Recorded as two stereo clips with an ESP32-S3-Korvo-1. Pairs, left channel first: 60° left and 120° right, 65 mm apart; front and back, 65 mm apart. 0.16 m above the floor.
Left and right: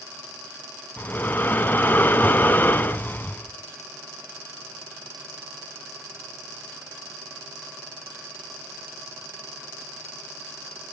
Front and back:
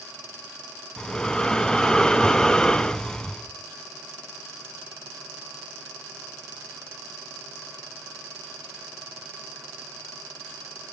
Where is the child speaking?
I don't hear a child speaking.